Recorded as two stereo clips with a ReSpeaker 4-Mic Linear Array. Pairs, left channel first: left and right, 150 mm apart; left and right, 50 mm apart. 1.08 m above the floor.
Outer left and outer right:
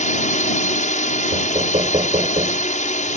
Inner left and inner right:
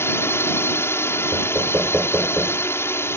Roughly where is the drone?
Left.